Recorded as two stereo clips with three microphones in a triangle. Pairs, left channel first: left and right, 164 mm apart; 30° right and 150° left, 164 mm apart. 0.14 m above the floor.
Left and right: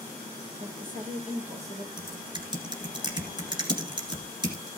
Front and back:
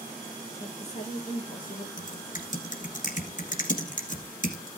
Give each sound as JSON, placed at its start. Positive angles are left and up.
{"t": 0.6, "sound": "a woman speaking", "azimuth_deg": -75, "distance_m": 3.5}
{"t": 2.0, "sound": "typing on a keyboard", "azimuth_deg": -35, "distance_m": 1.7}